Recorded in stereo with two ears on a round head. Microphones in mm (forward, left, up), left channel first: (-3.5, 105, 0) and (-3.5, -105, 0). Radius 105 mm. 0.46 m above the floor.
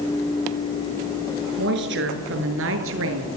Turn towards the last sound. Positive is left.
turn(degrees=-65)  # may be behind; listen again after turning